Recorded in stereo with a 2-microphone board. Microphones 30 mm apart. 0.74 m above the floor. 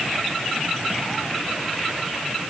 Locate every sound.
Only background noise.